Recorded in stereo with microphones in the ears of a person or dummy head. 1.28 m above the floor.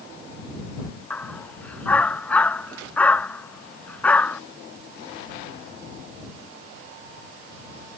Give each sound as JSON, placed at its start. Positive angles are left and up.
{"t": 1.1, "sound": "a dog barking", "side_deg": 10}